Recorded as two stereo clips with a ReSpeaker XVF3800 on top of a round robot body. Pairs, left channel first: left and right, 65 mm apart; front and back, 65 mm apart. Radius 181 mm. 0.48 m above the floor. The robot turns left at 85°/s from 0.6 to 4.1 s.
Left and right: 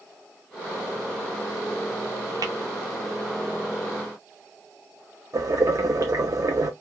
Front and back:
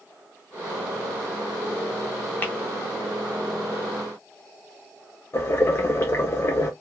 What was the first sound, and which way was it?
Tapping, 65° right.